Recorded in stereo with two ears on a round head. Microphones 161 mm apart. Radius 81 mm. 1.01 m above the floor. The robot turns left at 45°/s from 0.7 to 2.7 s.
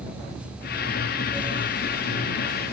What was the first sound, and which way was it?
Only background noise.